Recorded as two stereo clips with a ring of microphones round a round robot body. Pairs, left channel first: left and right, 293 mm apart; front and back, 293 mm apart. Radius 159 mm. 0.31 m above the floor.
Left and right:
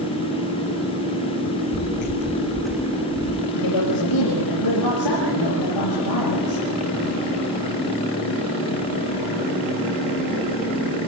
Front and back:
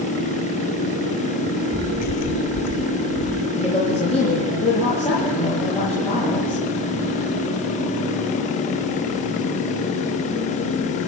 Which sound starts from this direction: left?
A woman speaking, at 3.5 s.